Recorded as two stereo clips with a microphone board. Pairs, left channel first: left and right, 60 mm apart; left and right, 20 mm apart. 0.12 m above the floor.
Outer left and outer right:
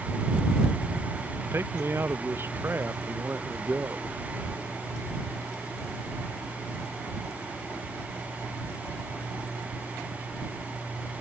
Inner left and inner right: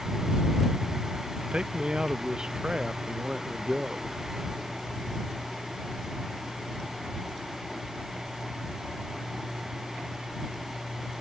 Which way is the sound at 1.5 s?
40° right (ahead or behind).